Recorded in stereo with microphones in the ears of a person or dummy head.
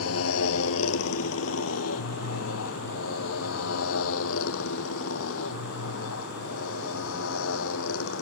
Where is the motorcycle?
80° left; by 8.2 s 75° left (ahead or behind).